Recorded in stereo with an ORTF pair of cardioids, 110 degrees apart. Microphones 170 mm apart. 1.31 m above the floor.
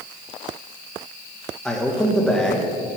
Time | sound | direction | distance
1.6 | a man speaking | 5° left | 1.6 m